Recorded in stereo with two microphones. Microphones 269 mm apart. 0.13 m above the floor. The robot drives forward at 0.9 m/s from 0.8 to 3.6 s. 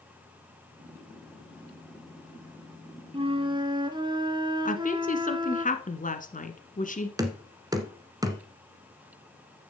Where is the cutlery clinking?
No cutlery clinking in this recording.